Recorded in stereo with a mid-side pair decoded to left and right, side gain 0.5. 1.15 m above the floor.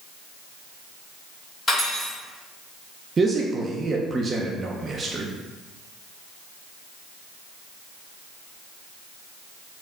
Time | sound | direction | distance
1.7 | cutlery clinking | 35° left | 1.8 m
3.2 | a man speaking | 35° right | 0.5 m